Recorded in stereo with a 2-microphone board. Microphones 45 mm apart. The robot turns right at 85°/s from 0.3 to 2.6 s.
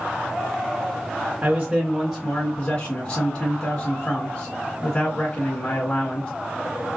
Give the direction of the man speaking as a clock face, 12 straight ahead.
2 o'clock.